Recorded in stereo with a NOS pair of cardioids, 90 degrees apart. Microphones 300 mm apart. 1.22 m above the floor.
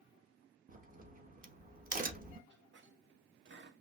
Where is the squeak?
40° right, 0.8 m.